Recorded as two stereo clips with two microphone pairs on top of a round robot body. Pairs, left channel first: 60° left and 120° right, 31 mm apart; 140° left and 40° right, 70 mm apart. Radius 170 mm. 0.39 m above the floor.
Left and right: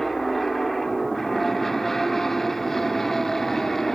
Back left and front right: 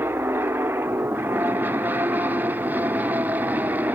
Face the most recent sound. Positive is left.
turn(degrees=-30)